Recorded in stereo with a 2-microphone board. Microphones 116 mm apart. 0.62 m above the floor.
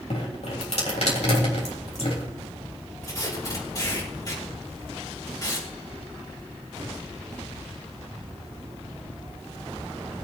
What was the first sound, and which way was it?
Dripping, 65° left (ahead or behind).